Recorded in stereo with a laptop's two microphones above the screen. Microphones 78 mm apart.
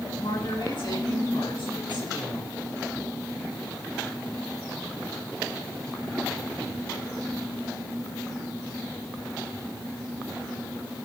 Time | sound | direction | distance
0.2 | a woman speaking | 85° left | 8 m